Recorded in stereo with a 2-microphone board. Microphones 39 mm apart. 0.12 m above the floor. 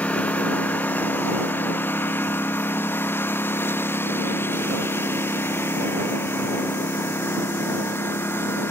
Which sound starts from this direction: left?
A lawn mower, at 0.0 s.